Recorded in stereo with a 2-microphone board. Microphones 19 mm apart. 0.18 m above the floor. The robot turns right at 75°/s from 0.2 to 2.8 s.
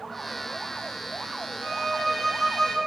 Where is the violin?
65° right, 2 m; by 2.8 s 20° left, 2 m.